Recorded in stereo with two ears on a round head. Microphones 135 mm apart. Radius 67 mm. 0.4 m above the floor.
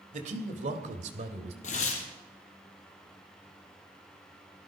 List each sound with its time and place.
0.1 s a man speaking: 50° right (ahead or behind), 1.9 m; by 1.5 s 45° right (ahead or behind), 1.7 m
1.6 s tearing paper: 55° left (ahead or behind), 2.5 m